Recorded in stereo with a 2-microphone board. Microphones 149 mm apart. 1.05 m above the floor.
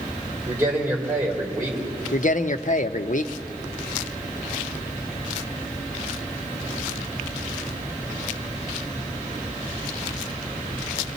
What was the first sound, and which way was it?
A man speaking, 20° right (ahead or behind).